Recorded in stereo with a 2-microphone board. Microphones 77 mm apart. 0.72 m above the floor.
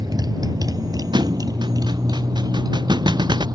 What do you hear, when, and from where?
0.0 s a motorcycle: 55° right (ahead or behind)
1.1 s a thud: 70° right (ahead or behind)